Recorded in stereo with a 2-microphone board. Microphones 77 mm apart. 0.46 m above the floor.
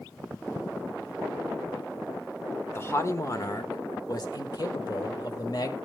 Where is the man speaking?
30° left (ahead or behind), 1.1 m; by 5.8 s 50° left (ahead or behind), 1.8 m.